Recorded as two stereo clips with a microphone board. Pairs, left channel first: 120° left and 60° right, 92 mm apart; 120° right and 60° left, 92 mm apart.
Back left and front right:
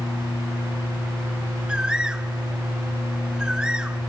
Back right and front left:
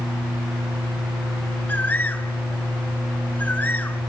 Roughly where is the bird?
Behind right.